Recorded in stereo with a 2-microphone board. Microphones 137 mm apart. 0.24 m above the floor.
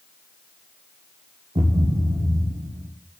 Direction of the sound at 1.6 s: 45° right (ahead or behind).